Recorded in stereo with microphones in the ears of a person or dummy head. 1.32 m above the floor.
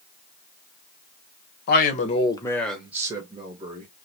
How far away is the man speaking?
About 1.0 m.